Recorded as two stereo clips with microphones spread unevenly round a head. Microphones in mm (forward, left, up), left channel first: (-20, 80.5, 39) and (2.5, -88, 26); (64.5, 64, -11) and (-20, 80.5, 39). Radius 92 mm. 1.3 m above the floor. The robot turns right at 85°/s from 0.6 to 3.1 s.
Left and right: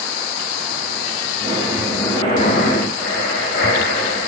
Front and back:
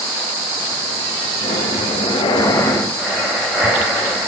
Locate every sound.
1.4 s breathing: 30° right, 0.9 m; by 4.3 s 115° left, 0.9 m